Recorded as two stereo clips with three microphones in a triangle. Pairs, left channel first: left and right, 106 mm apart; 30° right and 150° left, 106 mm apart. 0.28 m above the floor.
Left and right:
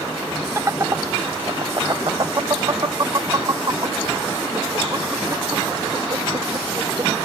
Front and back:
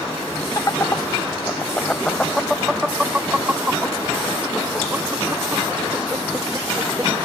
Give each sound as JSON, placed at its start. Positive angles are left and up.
{"t": 0.6, "sound": "laughter", "azimuth_deg": -50}